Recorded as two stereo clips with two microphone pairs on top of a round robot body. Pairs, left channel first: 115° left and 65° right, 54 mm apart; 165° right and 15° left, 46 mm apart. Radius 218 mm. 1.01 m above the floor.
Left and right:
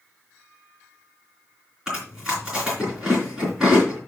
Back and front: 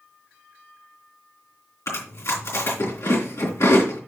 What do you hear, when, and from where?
1.9 s chewing: 145° right, 3.5 m